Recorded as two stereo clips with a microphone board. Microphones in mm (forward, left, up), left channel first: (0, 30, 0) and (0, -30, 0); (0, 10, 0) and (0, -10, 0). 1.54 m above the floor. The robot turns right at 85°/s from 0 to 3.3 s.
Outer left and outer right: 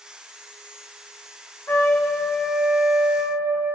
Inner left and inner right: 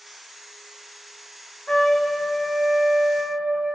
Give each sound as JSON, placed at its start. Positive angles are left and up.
{"t": 1.7, "sound": "a trumpet", "azimuth_deg": 110, "distance_m": 0.9}